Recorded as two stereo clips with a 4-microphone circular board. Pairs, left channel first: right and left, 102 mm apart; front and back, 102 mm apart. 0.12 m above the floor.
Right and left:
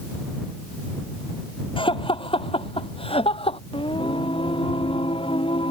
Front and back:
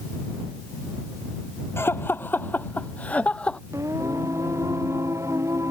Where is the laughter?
65° right; by 3.6 s 80° right.